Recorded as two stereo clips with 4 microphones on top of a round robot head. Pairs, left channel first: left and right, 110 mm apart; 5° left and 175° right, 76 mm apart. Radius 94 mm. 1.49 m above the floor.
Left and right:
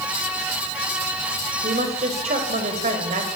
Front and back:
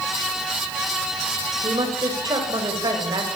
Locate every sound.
1.6 s a woman speaking: 125° right, 7 m